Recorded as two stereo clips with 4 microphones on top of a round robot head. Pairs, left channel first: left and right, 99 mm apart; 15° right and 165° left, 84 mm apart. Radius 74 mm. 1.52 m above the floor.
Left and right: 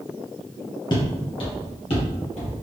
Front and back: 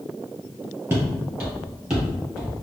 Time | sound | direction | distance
0.9 | footsteps | 105° left | 1.9 m